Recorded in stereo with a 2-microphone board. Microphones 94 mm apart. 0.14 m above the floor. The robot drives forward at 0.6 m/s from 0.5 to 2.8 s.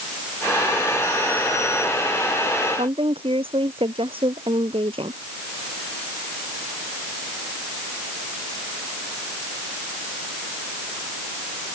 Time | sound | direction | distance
2.8 | a woman speaking | 75° right (ahead or behind) | ?